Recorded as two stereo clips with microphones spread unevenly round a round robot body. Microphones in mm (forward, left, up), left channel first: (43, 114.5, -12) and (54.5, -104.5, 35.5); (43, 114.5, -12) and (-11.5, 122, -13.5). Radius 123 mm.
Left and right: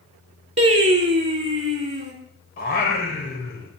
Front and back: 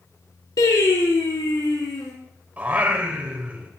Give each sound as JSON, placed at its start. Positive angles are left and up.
{"t": 0.6, "sound": "singing", "azimuth_deg": -25, "distance_m": 3.0}
{"t": 2.6, "sound": "singing", "azimuth_deg": 120, "distance_m": 2.0}